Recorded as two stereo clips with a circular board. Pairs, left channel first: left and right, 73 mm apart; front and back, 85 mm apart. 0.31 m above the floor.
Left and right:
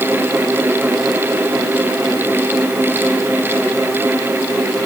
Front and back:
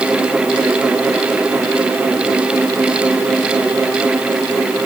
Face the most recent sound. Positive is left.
No sound to turn to.